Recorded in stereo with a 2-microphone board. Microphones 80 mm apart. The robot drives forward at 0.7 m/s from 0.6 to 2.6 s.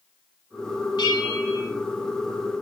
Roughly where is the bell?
Left.